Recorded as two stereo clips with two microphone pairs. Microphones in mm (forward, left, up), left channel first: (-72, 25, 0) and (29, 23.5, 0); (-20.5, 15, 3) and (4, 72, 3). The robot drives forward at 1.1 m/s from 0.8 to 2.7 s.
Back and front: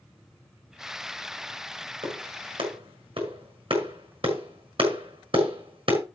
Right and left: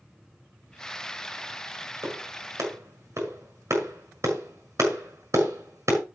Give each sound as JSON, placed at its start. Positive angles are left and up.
{"t": 2.0, "sound": "a clap", "azimuth_deg": 25, "distance_m": 7.0}